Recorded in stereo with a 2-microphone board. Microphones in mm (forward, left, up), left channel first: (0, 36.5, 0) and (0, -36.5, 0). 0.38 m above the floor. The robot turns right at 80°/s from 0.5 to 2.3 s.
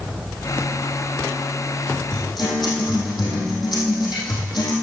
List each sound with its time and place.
2.1 s a guitar: 75° left (ahead or behind), 4 m; by 4.7 s 90° left, 4 m